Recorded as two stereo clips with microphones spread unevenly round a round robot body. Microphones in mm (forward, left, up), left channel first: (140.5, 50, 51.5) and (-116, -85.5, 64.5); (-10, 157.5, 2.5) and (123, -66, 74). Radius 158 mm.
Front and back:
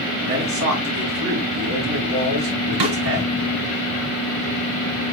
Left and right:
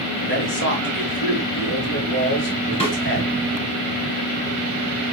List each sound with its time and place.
0.2 s a man speaking: 165° left, 5 m
2.8 s a snare drum: 170° right, 3 m